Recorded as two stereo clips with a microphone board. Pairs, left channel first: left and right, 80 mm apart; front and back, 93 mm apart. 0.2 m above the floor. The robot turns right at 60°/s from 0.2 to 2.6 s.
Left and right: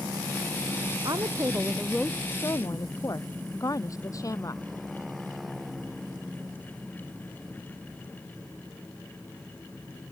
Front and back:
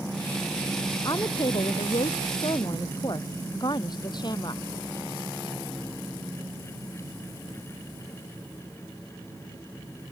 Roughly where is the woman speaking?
Ahead right.